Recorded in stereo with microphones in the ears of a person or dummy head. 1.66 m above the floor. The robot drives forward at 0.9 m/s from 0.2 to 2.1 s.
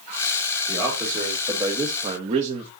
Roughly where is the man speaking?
Centre.